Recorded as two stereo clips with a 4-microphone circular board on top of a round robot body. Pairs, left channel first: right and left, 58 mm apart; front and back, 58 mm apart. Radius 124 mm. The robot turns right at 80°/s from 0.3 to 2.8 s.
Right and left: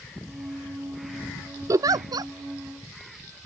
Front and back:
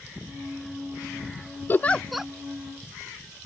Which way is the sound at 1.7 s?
55° left.